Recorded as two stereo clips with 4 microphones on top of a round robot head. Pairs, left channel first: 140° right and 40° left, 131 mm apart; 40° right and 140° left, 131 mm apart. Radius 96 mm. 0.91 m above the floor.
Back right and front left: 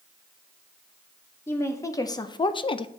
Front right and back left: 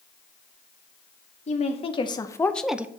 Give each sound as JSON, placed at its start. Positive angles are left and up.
{"t": 1.5, "sound": "a woman speaking", "azimuth_deg": -70, "distance_m": 0.9}